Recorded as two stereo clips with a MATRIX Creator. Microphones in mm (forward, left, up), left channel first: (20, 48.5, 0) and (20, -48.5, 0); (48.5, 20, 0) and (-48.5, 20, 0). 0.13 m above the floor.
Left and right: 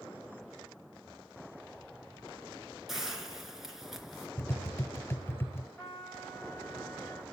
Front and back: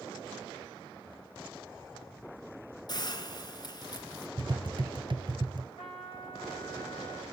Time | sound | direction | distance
2.9 | a hiss | 5° right | 2.5 m
4.4 | tapping | 150° left | 0.7 m
5.8 | a trumpet | 30° left | 8.5 m